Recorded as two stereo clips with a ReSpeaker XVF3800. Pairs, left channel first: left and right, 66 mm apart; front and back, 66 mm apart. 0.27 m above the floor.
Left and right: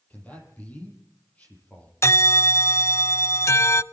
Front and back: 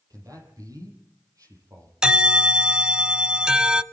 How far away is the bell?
About 0.6 m.